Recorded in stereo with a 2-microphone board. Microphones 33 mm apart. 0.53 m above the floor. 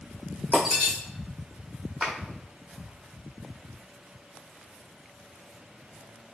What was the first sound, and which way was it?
Breaking glass, 5° left (ahead or behind).